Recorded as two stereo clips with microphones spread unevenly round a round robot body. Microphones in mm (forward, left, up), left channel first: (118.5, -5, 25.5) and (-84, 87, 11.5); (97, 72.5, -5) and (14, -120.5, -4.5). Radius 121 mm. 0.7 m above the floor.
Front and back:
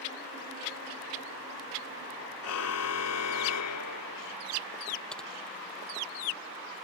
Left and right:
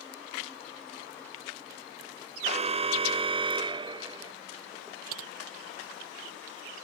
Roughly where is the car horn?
Ahead right.